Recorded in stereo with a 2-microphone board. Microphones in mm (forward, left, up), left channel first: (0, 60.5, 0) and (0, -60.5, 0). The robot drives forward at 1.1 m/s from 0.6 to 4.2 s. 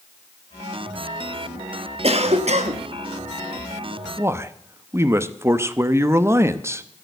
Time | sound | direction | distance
2.0 | a cough | 55° right (ahead or behind) | 1.5 m
4.2 | a man speaking | 20° right (ahead or behind) | 0.8 m